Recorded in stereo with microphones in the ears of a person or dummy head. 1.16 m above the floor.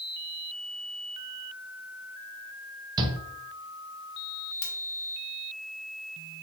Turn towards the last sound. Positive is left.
turn(degrees=50)  # may be behind; listen again after turning